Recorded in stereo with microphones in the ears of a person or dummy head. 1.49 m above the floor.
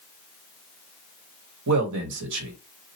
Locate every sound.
1.7 s a man speaking: 80° right, 1.3 m